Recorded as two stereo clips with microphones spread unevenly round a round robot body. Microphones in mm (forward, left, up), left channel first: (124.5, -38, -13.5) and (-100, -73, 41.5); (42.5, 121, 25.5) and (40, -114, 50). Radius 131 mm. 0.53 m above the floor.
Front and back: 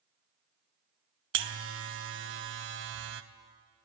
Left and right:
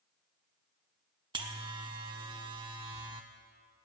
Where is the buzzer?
160° right, 0.6 m.